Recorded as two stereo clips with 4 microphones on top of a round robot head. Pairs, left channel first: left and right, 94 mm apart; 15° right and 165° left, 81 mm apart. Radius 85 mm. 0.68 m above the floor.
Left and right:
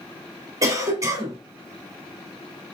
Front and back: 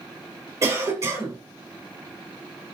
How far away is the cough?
About 2.5 m.